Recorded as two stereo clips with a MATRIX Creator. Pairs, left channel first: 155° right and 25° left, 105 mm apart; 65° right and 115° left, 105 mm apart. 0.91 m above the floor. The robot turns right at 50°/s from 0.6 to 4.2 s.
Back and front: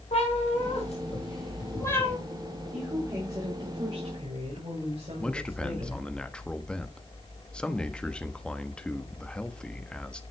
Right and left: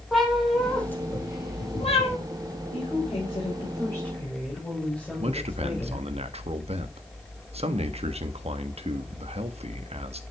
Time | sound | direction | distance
0.1 | a cat meowing | 155° right | 4 m
2.7 | a woman speaking | 60° right | 5 m
5.2 | a man speaking | 120° left | 1.2 m